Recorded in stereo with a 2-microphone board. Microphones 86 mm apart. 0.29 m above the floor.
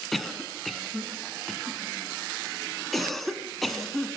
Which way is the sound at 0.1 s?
Centre (ahead or behind).